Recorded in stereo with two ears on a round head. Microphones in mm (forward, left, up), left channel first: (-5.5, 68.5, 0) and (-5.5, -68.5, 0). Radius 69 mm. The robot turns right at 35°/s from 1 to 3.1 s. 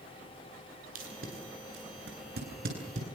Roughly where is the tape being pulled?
Right.